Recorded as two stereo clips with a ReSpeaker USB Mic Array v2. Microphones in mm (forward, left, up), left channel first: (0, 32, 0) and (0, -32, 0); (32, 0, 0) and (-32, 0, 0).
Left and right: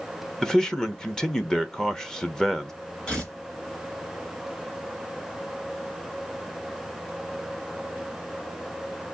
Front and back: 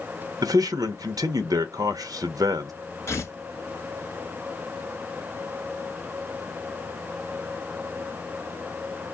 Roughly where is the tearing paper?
Ahead left.